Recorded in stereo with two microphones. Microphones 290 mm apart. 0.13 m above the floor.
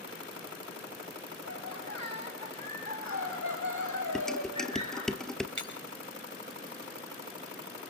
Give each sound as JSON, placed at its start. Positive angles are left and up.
{"t": 1.4, "sound": "laughter", "side_deg": 55, "distance_m": 8.5}
{"t": 4.2, "sound": "dishes clattering", "side_deg": 0, "distance_m": 2.0}
{"t": 5.6, "sound": "breaking glass", "side_deg": -85, "distance_m": 5.5}